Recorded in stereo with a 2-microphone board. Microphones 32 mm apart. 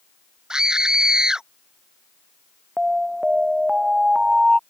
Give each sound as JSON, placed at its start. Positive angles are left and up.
{"t": 0.5, "sound": "a scream", "side_deg": -20}
{"t": 2.8, "sound": "an alarm", "side_deg": -15}